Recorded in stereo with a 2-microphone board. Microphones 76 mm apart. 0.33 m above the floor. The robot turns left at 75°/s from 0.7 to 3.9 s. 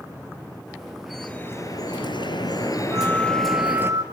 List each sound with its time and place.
1.1 s dripping: straight behind, 3 m; by 3.9 s 35° right, 3 m
2.9 s a flute: 45° right, 3 m; by 4.0 s 115° right, 3 m